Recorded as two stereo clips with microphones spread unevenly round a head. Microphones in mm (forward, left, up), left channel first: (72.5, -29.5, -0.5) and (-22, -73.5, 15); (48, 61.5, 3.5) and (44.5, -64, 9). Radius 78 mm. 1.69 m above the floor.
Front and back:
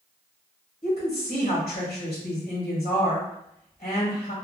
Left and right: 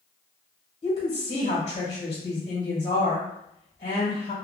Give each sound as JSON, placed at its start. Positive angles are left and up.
{"t": 0.8, "sound": "a woman speaking", "azimuth_deg": 60, "distance_m": 1.4}